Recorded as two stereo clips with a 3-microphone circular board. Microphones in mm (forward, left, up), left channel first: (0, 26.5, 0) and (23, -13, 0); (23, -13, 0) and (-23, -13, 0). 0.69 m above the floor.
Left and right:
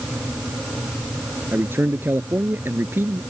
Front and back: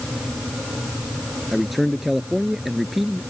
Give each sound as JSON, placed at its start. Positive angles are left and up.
{"t": 1.5, "sound": "a man speaking", "azimuth_deg": -90}